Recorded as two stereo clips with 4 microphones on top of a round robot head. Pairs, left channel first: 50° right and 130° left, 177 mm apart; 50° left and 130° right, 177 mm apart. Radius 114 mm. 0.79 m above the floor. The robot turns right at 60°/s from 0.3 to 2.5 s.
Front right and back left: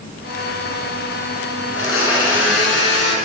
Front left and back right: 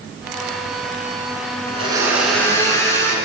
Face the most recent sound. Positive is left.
turn(degrees=-25)